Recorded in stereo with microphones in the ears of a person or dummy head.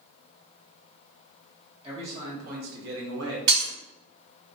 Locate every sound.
1.8 s a man speaking: 30° right (ahead or behind), 1.5 m; by 3.4 s 75° right (ahead or behind), 0.8 m
3.5 s breaking glass: 60° right (ahead or behind), 1.7 m